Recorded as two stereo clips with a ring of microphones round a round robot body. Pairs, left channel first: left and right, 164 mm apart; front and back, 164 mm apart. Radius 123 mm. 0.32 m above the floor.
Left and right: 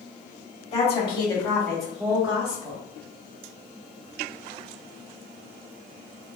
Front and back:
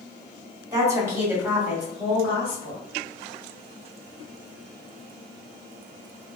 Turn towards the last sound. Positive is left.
turn(degrees=-65)